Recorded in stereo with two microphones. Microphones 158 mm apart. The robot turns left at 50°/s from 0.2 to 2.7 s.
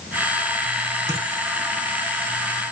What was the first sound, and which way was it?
A dropped coin, 20° right (ahead or behind).